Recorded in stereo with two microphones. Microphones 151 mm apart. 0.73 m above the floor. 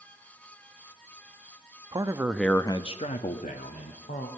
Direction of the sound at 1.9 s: 30° right (ahead or behind).